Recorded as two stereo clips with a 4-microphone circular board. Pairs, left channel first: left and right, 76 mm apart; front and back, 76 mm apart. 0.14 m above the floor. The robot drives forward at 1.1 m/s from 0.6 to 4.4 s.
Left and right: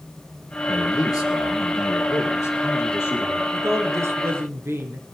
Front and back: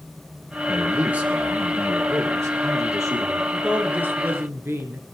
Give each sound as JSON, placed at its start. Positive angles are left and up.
{"t": 0.7, "sound": "a man speaking", "azimuth_deg": 100, "distance_m": 3.0}
{"t": 3.5, "sound": "a woman speaking", "azimuth_deg": -105, "distance_m": 2.0}